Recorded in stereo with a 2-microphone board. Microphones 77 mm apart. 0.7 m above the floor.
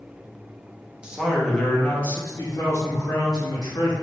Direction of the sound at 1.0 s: 15° right (ahead or behind).